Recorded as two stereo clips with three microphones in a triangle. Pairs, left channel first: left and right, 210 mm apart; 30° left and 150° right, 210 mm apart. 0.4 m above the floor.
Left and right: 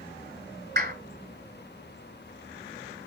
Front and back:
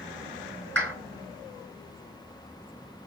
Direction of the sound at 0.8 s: 50° right.